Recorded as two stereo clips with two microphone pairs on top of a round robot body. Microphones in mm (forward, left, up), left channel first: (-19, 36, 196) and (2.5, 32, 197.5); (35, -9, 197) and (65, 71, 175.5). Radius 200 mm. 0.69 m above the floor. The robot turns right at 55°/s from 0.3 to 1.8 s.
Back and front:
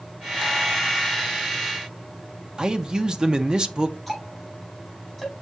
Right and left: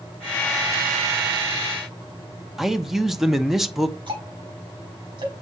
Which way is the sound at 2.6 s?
10° left.